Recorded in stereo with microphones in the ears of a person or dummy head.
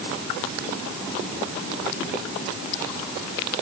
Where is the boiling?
No boiling in this recording.